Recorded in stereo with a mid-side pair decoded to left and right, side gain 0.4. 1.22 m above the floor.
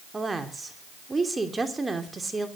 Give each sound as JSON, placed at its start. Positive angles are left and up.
{"t": 0.1, "sound": "a woman speaking", "azimuth_deg": -25, "distance_m": 3.0}